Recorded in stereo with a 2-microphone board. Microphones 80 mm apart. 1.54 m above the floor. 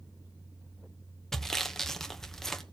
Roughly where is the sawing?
Centre.